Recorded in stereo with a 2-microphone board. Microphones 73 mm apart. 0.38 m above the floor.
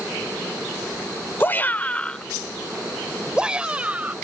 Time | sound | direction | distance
1.4 | a shout | 30° left (ahead or behind) | ?